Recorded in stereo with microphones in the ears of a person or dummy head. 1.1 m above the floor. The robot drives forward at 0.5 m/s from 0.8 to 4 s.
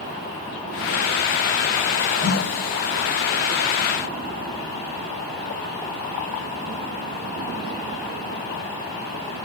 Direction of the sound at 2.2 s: 70° right (ahead or behind).